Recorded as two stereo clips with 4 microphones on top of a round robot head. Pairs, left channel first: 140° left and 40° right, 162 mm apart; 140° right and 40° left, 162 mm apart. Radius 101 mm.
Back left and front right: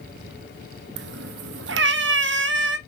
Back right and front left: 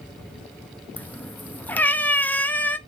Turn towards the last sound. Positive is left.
turn(degrees=-60)